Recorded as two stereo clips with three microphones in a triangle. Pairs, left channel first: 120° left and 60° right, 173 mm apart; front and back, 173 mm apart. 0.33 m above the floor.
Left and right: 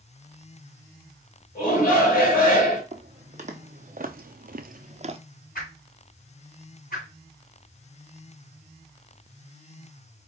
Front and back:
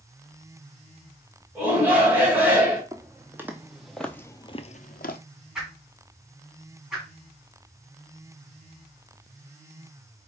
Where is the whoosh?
95° left, 2.5 m.